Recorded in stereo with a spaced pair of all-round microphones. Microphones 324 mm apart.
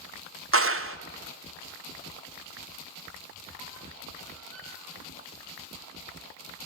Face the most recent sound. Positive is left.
turn(degrees=85)